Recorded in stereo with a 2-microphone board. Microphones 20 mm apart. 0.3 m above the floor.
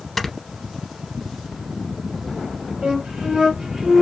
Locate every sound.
0.2 s snoring: 15° left (ahead or behind), 0.6 m
2.8 s a flute: 65° right (ahead or behind), 1.6 m